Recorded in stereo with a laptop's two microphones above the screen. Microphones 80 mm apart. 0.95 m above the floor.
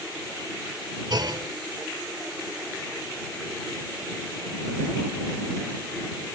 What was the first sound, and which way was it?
A clunk, 65° right (ahead or behind).